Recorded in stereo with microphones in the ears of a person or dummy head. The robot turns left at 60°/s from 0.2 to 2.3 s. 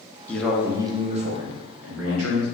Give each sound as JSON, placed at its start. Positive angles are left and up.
{"t": 0.3, "sound": "a man speaking", "azimuth_deg": 5, "distance_m": 0.9}